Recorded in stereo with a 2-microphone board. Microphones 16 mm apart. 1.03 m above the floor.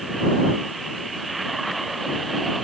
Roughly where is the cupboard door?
I don't hear a cupboard door.